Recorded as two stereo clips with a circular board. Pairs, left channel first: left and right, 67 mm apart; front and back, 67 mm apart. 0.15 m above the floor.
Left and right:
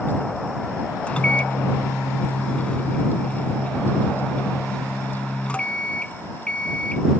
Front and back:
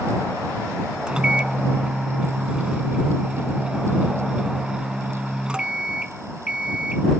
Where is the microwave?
125° left.